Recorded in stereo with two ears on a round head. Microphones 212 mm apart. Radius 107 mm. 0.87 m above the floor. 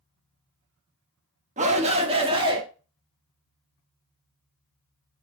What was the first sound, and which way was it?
A shout, 30° right (ahead or behind).